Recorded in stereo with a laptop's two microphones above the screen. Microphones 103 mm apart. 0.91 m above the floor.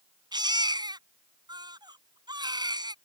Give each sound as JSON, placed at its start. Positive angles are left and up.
{"t": 0.3, "sound": "a baby crying", "side_deg": -45}